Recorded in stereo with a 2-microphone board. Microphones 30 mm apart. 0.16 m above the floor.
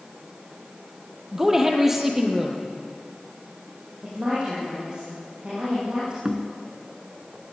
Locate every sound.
1.3 s a woman speaking: 15° right (ahead or behind), 4.5 m
4.0 s a woman speaking: 35° right (ahead or behind), 8.5 m
6.2 s knocking: 35° right (ahead or behind), 1.7 m